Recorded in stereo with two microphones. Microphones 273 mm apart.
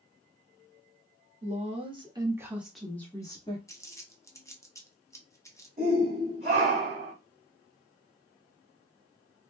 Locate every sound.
1.4 s a woman speaking: 25° right (ahead or behind), 1.3 m; by 3.6 s 20° left (ahead or behind), 1.0 m
3.7 s crumpling: 10° left (ahead or behind), 0.7 m
5.8 s a shout: 25° right (ahead or behind), 2.0 m